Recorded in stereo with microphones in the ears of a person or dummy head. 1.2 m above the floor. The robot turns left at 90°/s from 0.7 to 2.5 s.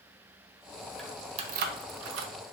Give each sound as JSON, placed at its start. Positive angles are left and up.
{"t": 1.0, "sound": "keys jangling", "side_deg": 5, "distance_m": 0.6}